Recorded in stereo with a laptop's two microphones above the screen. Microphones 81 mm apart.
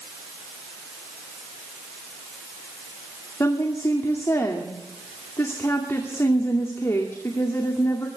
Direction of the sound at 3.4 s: 35° left (ahead or behind).